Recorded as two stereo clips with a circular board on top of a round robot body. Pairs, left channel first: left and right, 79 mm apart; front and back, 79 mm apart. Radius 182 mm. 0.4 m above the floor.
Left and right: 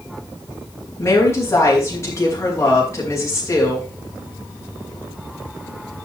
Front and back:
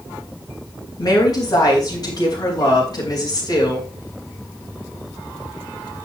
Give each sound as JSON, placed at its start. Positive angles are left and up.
{"t": 1.0, "sound": "a woman speaking", "azimuth_deg": 35, "distance_m": 4.5}